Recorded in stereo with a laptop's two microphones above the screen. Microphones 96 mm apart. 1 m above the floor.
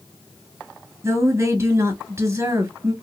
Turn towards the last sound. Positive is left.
turn(degrees=-30)  # may be behind; listen again after turning